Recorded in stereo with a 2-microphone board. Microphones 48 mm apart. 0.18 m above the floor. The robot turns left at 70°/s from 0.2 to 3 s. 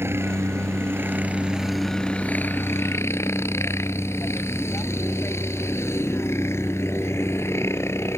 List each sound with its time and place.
0.0 s a helicopter: 70° right; by 8.2 s 95° left